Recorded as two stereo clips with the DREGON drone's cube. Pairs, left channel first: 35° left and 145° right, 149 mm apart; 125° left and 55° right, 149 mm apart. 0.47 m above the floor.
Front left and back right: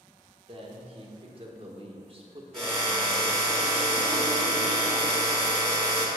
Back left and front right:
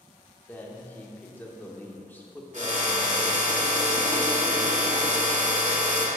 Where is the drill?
50° right, 1.6 m.